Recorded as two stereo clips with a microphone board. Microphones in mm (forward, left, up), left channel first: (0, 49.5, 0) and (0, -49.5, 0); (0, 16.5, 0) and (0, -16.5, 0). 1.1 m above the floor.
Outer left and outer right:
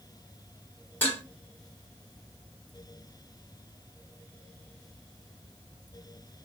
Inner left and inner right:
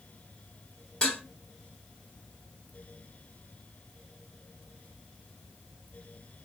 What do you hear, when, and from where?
1.0 s dishes clattering: 25° left (ahead or behind), 1.9 m